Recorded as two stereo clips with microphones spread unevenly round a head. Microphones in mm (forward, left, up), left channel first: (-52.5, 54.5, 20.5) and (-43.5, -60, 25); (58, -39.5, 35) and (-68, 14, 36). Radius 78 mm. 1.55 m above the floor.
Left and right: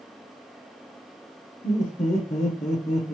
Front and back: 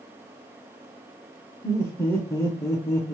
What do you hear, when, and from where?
1.6 s laughter: 50° left, 0.8 m